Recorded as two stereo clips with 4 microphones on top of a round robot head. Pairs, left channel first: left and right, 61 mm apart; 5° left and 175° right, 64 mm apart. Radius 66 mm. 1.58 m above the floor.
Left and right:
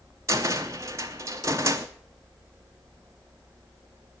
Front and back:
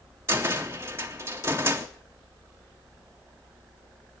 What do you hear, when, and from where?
0.3 s a cupboard door: 125° right, 0.5 m